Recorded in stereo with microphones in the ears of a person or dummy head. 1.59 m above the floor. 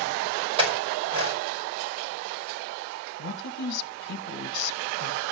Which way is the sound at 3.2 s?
60° left (ahead or behind).